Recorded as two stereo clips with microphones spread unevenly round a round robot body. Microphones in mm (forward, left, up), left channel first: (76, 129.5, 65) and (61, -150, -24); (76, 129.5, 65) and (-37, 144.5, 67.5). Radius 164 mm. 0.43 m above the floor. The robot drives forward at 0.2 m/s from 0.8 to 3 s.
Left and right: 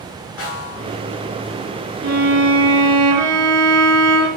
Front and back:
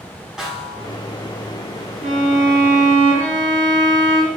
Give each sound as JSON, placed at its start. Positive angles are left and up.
{"t": 0.4, "sound": "a snare drum", "azimuth_deg": 85, "distance_m": 5.0}
{"t": 2.0, "sound": "a violin", "azimuth_deg": -150, "distance_m": 2.0}